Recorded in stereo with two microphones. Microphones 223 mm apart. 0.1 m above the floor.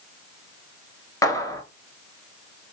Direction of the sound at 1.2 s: 15° left (ahead or behind).